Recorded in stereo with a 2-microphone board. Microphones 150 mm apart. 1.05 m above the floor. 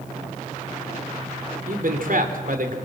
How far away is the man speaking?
About 3 m.